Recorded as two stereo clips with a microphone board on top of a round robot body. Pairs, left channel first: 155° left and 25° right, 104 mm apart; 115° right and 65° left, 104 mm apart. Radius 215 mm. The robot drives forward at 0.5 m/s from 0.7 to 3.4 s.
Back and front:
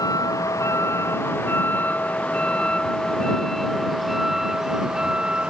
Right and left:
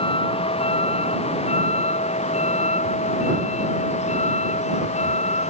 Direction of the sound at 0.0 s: 145° right.